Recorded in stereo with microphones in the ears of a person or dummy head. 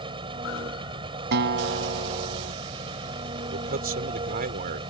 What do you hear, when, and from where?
0.0 s an engine running: 25° right (ahead or behind)
1.3 s a guitar: 55° right (ahead or behind)
3.5 s a man speaking: 45° right (ahead or behind)